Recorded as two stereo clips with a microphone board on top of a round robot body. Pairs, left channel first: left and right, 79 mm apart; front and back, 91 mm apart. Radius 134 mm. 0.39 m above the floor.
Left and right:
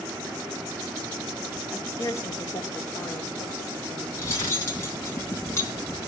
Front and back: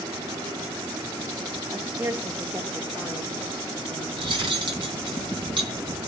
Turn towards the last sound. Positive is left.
turn(degrees=145)